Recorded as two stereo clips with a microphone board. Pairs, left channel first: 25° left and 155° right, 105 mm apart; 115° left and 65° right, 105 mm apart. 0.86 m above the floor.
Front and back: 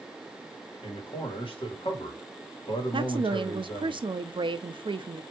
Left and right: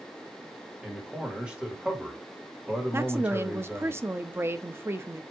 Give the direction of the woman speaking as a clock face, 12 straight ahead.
4 o'clock.